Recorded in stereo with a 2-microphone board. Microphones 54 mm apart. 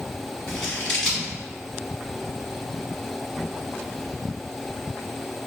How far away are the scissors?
About 1.1 m.